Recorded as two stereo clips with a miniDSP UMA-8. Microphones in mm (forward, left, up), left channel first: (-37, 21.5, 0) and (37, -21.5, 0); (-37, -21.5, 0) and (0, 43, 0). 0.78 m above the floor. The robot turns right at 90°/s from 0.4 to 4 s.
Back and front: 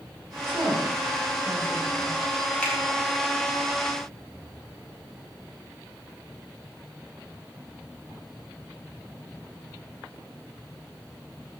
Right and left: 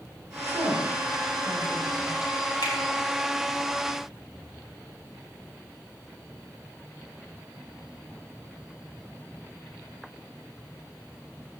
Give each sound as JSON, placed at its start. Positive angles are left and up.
{"t": 0.5, "sound": "a woman speaking", "azimuth_deg": 30, "distance_m": 7.0}
{"t": 2.6, "sound": "a finger snap", "azimuth_deg": -135, "distance_m": 6.0}